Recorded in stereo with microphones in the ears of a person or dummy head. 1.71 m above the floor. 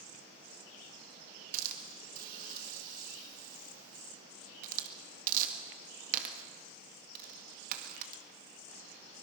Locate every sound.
1.5 s a hiss: 50° right (ahead or behind), 1.9 m